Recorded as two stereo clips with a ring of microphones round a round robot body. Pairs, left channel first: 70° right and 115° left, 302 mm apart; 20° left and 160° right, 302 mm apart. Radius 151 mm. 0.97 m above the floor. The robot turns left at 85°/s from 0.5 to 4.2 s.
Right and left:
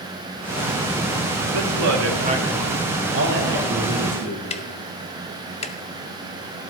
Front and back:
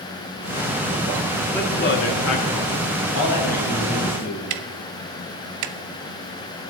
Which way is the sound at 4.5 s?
135° right.